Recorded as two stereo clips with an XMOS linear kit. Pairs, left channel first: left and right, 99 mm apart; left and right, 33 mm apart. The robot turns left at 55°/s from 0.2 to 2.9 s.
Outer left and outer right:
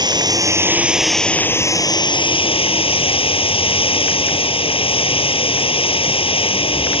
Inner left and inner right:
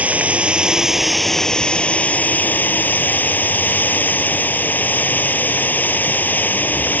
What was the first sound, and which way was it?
Running water, 130° right.